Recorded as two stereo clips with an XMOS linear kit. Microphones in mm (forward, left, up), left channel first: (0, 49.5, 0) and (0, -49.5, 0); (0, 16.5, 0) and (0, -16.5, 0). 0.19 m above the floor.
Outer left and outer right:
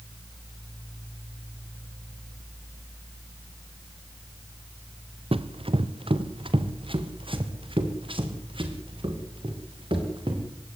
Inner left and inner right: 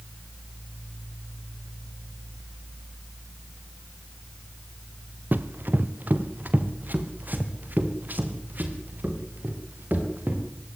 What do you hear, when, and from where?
5.3 s running footsteps: 65° right (ahead or behind), 1.3 m; by 10.4 s 60° right (ahead or behind), 6 m